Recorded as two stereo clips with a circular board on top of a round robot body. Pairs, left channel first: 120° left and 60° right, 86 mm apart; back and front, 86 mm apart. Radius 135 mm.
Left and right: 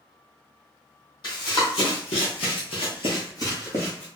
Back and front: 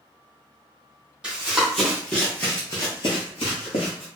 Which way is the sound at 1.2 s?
80° left.